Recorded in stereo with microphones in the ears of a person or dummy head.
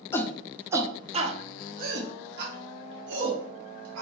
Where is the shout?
15° left (ahead or behind), 0.7 m; by 4.0 s 70° right (ahead or behind), 2.0 m.